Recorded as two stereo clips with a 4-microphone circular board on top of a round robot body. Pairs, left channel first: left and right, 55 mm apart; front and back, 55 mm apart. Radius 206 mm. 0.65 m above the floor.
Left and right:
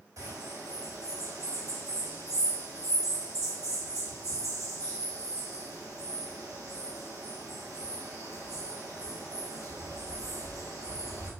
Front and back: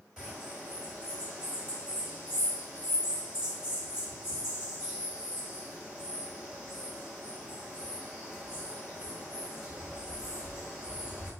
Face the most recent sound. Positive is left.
turn(degrees=-105)